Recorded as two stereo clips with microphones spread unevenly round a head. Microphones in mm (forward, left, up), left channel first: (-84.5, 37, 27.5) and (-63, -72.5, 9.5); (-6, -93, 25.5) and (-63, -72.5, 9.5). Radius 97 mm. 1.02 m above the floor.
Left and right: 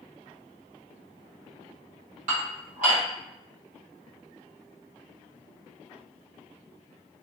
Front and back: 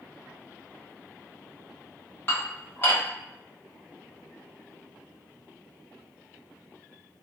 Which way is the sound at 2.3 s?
70° right.